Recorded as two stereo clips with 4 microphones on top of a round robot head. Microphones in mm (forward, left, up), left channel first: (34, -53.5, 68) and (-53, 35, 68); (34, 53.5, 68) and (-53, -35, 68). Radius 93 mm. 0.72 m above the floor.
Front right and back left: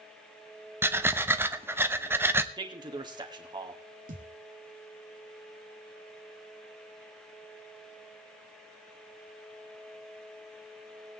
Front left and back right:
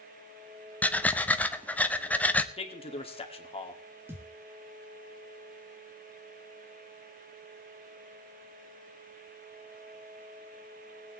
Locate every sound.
0.8 s breathing: 100° left, 1.0 m
2.6 s a man speaking: 85° left, 2 m
4.1 s a thud: 150° left, 1.8 m